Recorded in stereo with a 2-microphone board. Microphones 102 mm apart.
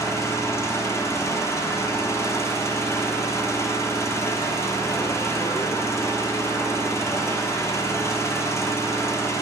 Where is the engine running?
30° left (ahead or behind), 0.7 m.